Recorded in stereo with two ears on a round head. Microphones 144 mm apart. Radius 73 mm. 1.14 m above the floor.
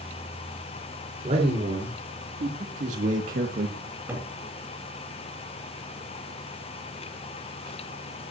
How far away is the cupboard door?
About 7 m.